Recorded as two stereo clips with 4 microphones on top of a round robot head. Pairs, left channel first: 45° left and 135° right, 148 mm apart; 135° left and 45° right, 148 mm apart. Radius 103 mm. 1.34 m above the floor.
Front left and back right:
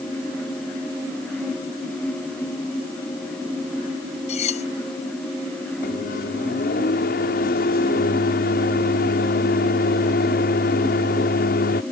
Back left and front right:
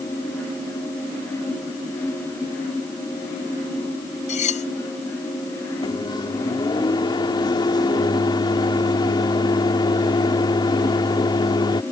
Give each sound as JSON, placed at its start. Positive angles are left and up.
{"t": 4.3, "sound": "cutlery clinking", "azimuth_deg": 95}
{"t": 5.8, "sound": "a microwave", "azimuth_deg": 75}